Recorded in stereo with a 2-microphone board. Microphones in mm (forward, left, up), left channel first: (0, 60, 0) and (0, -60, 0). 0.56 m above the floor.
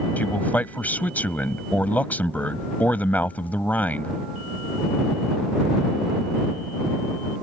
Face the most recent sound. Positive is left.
turn(degrees=15)  # may be behind; listen again after turning